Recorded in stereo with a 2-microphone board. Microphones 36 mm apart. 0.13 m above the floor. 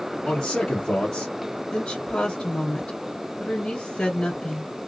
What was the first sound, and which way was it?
A man speaking, 20° left (ahead or behind).